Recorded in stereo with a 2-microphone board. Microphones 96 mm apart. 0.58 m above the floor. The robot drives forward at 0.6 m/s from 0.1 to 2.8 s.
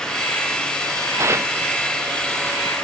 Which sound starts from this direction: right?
Tearing paper, at 1.2 s.